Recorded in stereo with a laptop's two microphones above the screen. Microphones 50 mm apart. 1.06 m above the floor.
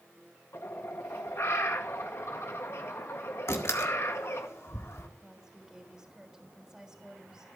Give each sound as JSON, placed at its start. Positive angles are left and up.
{"t": 0.5, "sound": "a bird", "side_deg": 60, "distance_m": 1.5}
{"t": 3.5, "sound": "a door slam", "side_deg": 65, "distance_m": 1.8}
{"t": 5.2, "sound": "a woman speaking", "side_deg": -10, "distance_m": 3.0}